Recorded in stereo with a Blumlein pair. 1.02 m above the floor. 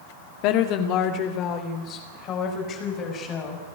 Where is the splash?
I don't hear a splash.